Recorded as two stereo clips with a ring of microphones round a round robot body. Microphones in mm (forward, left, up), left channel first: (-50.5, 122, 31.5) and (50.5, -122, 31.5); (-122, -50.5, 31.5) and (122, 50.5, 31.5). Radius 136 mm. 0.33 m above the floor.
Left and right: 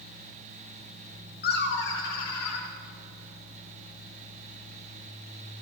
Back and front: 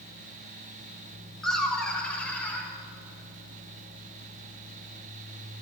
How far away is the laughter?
About 1.2 m.